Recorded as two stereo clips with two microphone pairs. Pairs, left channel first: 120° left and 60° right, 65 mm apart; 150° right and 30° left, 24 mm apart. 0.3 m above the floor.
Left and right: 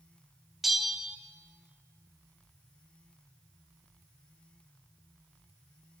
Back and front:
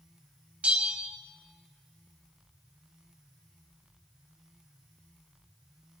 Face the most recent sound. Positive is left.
turn(degrees=20)